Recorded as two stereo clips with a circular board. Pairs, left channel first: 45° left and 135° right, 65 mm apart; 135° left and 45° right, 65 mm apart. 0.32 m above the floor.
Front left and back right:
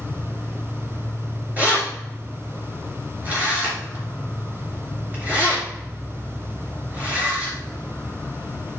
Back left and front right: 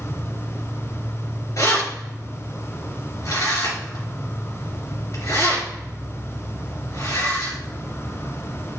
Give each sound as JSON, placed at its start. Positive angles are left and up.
{"t": 0.0, "sound": "an insect", "azimuth_deg": 110, "distance_m": 0.9}
{"t": 1.6, "sound": "keys jangling", "azimuth_deg": 160, "distance_m": 3.0}